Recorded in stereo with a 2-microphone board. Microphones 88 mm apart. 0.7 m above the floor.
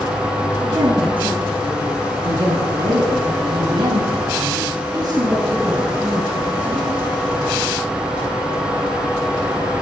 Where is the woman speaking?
75° right (ahead or behind), 8.5 m; by 6.9 s 15° right (ahead or behind), 5 m.